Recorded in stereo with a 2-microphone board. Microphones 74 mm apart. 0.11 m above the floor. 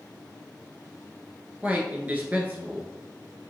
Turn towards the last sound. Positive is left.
turn(degrees=-25)  # may be behind; listen again after turning